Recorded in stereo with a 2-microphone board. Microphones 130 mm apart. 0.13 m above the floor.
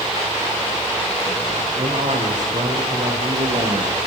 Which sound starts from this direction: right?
A man speaking, at 1.8 s.